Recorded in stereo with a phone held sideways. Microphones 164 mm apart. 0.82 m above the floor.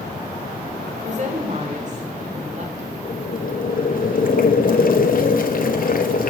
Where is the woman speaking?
45° right (ahead or behind), 3.5 m.